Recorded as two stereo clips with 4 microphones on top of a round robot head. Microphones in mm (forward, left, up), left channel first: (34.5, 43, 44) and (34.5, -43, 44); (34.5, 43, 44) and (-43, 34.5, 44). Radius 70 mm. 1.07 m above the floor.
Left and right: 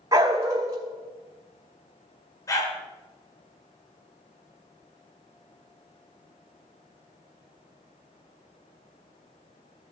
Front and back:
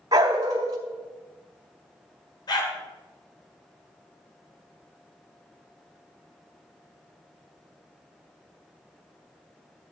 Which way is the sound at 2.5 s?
40° left.